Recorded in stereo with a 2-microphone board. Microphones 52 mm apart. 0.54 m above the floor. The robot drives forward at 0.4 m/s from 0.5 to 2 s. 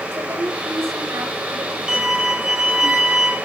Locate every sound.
0.1 s a woman speaking: 70° right (ahead or behind), 3 m; by 2.9 s 65° right (ahead or behind), 3.5 m
1.9 s a violin: 10° right (ahead or behind), 2 m